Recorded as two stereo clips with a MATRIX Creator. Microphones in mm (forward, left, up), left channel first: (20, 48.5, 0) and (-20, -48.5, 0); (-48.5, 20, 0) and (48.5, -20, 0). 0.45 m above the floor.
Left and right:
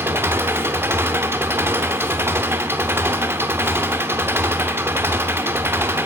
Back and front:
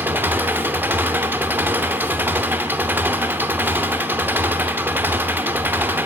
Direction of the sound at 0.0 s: 70° right.